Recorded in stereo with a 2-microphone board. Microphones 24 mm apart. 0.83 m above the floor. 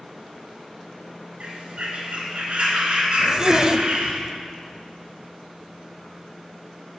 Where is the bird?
45° right (ahead or behind), 2 m.